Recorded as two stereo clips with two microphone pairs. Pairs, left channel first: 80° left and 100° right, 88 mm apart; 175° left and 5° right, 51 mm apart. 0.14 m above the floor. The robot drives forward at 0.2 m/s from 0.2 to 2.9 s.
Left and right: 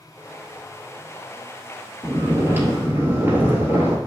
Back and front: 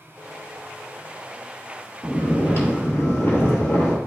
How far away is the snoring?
About 1.2 m.